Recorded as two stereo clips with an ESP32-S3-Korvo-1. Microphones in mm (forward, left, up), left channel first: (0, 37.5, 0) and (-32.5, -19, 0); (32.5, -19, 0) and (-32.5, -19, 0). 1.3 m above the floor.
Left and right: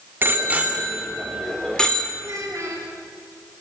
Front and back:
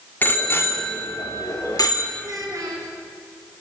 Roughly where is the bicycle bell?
Ahead right.